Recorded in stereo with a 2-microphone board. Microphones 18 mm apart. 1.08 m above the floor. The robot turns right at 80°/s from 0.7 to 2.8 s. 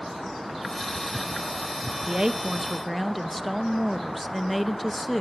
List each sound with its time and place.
2.1 s a woman speaking: 55° right, 1.4 m; by 5.2 s 5° left, 1.4 m